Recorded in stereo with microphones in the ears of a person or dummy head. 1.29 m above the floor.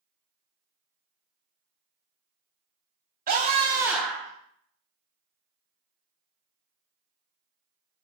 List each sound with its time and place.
3.3 s a scream: 40° right (ahead or behind), 1.7 m; by 4.3 s 20° left (ahead or behind), 1.5 m